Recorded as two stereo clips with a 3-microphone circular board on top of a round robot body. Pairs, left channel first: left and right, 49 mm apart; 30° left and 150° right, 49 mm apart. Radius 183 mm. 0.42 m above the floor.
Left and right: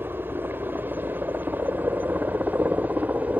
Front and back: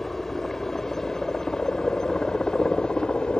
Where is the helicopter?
55° right; by 3.4 s 40° right.